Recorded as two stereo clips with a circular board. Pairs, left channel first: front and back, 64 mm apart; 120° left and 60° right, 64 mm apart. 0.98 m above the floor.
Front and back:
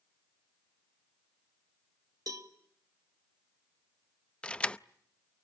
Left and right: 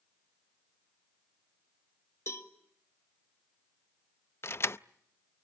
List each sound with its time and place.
2.3 s a cowbell: 160° left, 1.7 m
4.4 s keys jangling: 75° left, 0.5 m